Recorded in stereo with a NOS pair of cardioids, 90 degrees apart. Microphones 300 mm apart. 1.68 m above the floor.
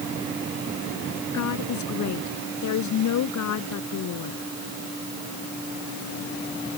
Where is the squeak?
No squeak in this recording.